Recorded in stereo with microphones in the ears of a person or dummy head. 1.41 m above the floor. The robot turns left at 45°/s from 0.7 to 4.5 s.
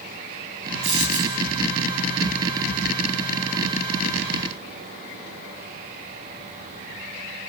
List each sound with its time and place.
0.8 s a dropped coin: 35° right (ahead or behind), 6 m; by 1.4 s 5° right (ahead or behind), 6 m